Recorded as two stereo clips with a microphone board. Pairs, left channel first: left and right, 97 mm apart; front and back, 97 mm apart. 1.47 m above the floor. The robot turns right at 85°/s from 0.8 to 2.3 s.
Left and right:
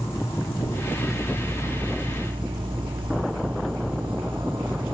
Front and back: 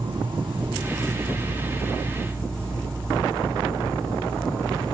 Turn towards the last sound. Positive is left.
turn(degrees=-80)